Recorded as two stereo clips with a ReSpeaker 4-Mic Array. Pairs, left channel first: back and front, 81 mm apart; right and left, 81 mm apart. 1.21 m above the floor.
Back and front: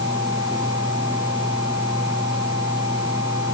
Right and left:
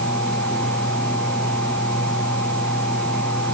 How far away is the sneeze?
No sneeze in this recording.